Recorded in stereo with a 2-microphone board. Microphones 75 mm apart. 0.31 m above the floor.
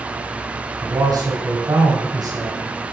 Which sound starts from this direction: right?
A man speaking, at 0.8 s.